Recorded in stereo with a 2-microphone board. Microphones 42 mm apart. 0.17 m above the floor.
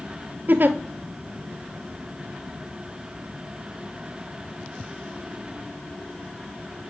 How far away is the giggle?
About 0.8 m.